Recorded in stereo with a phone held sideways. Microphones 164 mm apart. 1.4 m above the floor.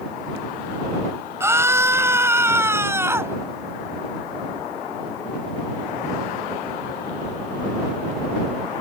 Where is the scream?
15° right (ahead or behind).